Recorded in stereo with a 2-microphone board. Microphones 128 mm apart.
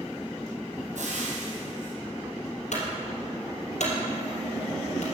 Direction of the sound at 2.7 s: 75° left (ahead or behind).